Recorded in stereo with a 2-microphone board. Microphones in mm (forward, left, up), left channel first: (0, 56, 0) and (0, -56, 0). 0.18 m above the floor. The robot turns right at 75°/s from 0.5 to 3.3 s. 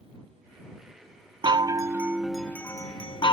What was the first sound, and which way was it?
A chime, 65° right.